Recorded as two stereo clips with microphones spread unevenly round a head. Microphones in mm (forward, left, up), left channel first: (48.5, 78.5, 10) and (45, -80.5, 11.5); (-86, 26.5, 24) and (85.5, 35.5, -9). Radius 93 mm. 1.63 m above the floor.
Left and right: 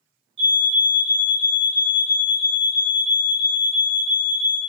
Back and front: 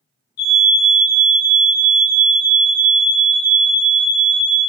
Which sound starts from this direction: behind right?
A fire alarm, at 0.4 s.